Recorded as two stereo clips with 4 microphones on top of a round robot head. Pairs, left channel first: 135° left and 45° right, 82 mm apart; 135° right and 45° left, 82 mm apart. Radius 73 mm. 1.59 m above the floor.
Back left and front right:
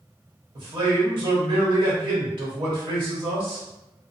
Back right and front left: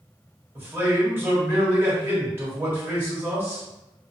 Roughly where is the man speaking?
Ahead.